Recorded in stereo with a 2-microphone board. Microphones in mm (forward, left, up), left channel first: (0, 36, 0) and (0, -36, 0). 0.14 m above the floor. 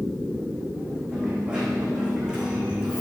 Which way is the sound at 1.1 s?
10° right (ahead or behind).